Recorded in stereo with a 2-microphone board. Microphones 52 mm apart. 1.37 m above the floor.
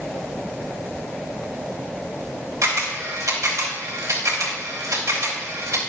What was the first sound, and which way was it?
A camera shutter, 85° right.